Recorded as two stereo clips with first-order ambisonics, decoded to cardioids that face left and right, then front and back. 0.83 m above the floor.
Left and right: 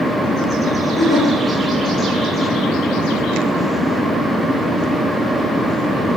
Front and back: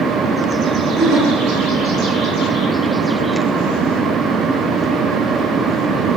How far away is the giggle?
About 1.8 m.